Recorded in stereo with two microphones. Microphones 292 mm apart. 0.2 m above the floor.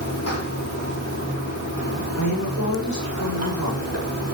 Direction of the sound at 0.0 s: 60° left (ahead or behind).